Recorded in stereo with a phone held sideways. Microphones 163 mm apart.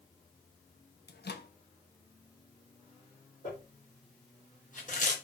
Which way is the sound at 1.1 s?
75° left (ahead or behind).